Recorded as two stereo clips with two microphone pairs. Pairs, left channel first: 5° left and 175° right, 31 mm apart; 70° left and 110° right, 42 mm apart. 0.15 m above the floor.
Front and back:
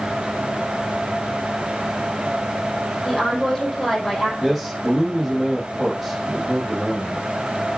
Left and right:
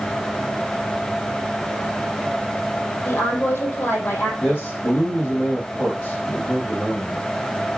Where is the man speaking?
105° left, 5 m.